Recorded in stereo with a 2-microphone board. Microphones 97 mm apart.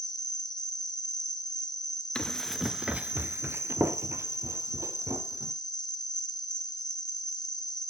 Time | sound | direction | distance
0.0 | an insect | 40° left (ahead or behind) | 0.9 m
2.1 | running footsteps | 10° left (ahead or behind) | 0.7 m